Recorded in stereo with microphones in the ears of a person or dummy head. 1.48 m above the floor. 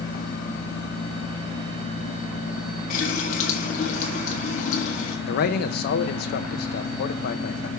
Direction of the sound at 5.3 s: 60° left (ahead or behind).